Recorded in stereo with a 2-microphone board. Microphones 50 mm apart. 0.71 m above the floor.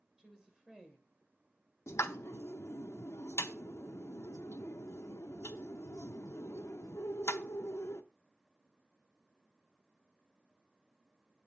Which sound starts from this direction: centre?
A woman speaking, at 0.2 s.